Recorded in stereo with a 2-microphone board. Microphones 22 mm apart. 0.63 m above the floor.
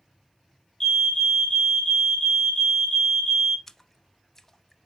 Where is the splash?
20° left (ahead or behind), 0.5 m.